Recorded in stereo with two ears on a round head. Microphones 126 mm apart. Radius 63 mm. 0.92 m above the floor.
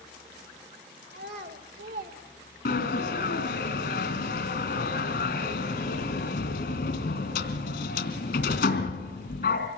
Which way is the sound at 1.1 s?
80° right.